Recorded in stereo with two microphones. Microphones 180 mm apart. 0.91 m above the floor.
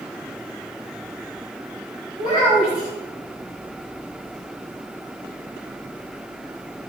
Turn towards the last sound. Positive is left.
turn(degrees=-55)  # may be behind; listen again after turning